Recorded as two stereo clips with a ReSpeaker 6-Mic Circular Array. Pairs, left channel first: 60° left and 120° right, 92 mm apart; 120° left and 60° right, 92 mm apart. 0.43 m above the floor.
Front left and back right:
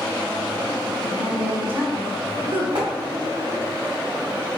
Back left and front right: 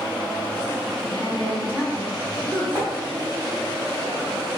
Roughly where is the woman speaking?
Behind.